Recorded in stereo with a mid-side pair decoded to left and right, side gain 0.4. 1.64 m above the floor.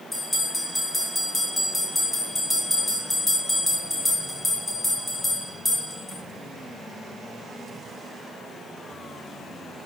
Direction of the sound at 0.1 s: 25° left.